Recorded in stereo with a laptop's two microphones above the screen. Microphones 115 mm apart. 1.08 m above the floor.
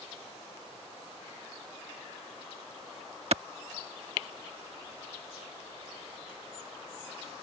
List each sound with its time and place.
3.3 s a clap: 60° right (ahead or behind)